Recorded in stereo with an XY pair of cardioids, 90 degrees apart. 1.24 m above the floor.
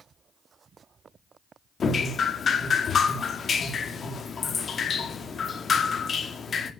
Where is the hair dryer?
No hair dryer in this recording.